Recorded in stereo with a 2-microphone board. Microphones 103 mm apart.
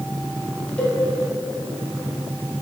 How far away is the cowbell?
About 1.1 m.